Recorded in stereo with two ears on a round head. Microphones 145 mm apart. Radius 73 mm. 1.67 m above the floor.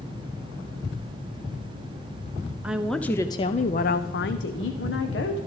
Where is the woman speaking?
10° right (ahead or behind), 0.8 m; by 5.4 s 75° left (ahead or behind), 1.4 m.